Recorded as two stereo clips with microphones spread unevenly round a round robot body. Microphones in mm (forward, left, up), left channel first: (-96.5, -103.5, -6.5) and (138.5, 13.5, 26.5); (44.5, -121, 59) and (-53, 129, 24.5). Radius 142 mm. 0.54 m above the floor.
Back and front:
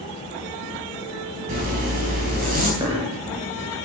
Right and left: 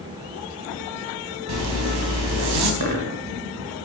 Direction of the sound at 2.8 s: 105° left.